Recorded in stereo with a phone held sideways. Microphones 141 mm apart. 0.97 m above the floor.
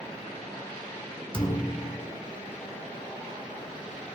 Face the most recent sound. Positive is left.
turn(degrees=40)  # may be behind; listen again after turning